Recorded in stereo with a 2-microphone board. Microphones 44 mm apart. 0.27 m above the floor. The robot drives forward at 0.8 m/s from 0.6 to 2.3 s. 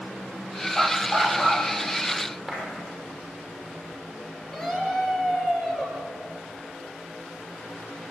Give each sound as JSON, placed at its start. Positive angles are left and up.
{"t": 0.8, "sound": "a dog barking", "side_deg": 5, "distance_m": 3.0}
{"t": 2.5, "sound": "a clap", "side_deg": 0, "distance_m": 7.5}
{"t": 4.5, "sound": "a scream", "side_deg": 5, "distance_m": 5.5}